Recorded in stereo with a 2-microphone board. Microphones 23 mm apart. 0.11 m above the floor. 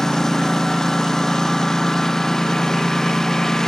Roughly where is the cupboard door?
No cupboard door in this recording.